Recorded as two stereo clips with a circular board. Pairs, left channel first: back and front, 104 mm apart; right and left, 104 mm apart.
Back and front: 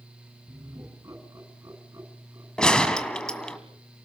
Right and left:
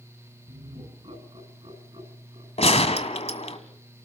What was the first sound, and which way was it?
Laughter, 60° left.